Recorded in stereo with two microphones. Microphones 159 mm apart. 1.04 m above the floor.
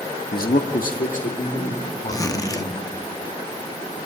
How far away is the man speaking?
About 1.2 m.